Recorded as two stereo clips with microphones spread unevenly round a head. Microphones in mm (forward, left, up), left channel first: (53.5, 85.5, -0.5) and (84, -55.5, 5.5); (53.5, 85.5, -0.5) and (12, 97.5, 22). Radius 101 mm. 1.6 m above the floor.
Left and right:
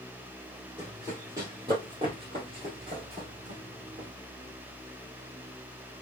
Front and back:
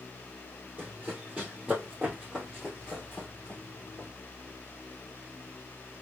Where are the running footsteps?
155° right, 2.5 m; by 4.1 s 110° right, 2.5 m.